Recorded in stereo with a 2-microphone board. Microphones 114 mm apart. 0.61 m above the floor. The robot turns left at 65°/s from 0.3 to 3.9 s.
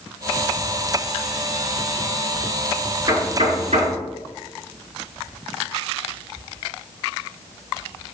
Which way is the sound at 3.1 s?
45° right (ahead or behind).